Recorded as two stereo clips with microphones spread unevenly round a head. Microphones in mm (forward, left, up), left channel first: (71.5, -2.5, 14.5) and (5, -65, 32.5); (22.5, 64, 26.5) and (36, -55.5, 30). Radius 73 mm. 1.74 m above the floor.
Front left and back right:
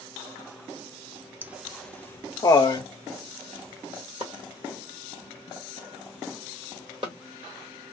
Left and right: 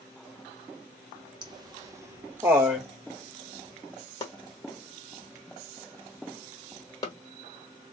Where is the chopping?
165° left, 1.0 m.